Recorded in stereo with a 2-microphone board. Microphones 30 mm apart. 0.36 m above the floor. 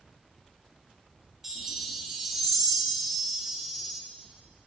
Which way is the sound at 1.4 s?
10° right (ahead or behind).